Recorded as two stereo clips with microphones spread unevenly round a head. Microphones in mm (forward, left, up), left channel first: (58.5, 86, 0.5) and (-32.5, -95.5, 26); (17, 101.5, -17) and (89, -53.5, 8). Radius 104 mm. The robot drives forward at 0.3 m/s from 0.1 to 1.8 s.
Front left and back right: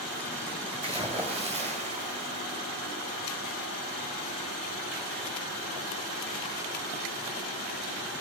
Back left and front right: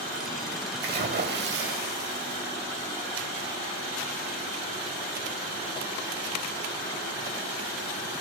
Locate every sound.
0.8 s a splash: 55° right, 2.5 m; by 2.6 s 60° right, 2.5 m